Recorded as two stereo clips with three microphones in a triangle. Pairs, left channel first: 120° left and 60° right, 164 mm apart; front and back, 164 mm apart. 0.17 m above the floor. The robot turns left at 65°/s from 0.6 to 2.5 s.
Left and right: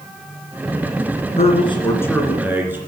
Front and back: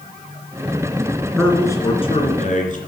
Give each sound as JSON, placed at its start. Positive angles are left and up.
{"t": 1.4, "sound": "a man speaking", "azimuth_deg": 90, "distance_m": 2.5}